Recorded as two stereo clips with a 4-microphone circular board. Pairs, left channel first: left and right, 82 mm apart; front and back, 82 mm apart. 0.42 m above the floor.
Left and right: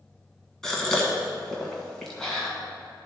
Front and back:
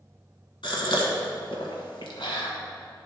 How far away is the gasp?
About 1.5 m.